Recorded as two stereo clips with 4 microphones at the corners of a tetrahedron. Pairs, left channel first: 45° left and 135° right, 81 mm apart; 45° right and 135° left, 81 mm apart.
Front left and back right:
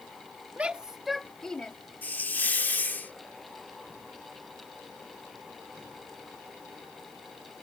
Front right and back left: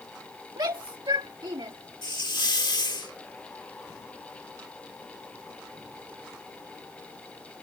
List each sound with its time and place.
0.6 s a shout: 155° left; by 1.7 s 120° left
2.0 s a hiss: 20° right